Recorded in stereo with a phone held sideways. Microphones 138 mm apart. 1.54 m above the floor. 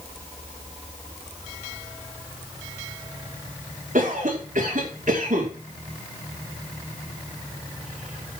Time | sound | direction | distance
4.0 | a cough | 65° right (ahead or behind) | 5 m